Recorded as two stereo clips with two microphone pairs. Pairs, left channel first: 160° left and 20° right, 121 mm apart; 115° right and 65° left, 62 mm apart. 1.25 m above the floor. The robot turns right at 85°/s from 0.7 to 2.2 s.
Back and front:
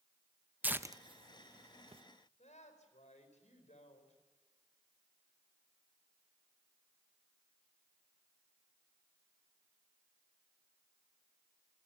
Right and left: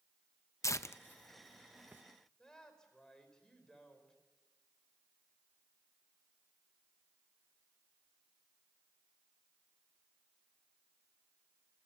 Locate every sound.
0.6 s tearing paper: 95° right, 0.6 m; by 2.0 s 15° left, 0.6 m
2.4 s a woman speaking: 165° left, 4.5 m